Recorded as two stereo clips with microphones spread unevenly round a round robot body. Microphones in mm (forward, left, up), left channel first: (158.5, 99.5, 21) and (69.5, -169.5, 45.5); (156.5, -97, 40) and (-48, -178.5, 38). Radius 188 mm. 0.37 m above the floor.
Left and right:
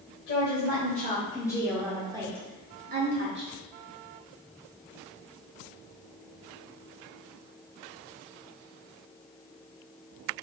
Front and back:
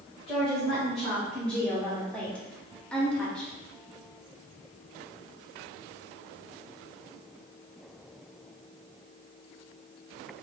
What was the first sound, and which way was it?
A woman speaking, 110° left.